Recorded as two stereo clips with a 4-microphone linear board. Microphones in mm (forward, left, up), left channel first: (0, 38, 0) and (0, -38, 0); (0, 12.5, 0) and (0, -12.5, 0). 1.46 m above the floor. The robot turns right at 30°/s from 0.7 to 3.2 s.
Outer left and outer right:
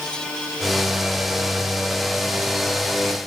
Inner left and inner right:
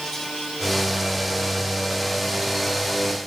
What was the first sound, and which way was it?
Only background noise.